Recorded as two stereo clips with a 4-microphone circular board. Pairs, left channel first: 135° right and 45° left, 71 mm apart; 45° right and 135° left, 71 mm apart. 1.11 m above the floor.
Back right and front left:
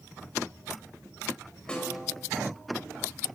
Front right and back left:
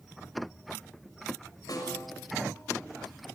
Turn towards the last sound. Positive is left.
turn(degrees=-60)